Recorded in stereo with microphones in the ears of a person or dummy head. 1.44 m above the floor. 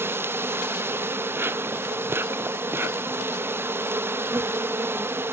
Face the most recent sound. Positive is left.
turn(degrees=-10)  # may be behind; listen again after turning